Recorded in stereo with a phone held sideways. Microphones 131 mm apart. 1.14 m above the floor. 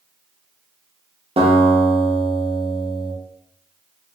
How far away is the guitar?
About 0.6 m.